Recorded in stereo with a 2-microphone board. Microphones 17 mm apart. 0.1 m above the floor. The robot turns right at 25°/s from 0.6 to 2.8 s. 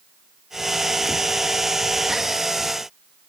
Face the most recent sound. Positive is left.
No sound to turn to.